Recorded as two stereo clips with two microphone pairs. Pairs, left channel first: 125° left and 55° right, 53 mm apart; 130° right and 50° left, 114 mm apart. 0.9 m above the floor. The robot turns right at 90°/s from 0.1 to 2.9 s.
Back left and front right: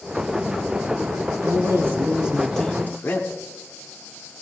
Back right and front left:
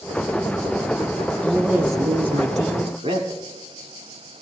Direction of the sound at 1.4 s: 55° right.